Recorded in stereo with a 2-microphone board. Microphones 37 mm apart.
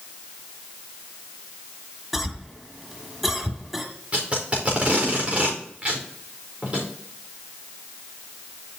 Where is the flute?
No flute in this recording.